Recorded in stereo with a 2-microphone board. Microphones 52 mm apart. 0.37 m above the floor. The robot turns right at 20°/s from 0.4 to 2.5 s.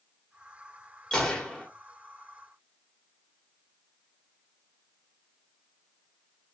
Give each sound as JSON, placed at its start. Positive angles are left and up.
{"t": 1.1, "sound": "a gunshot", "side_deg": 15, "distance_m": 1.0}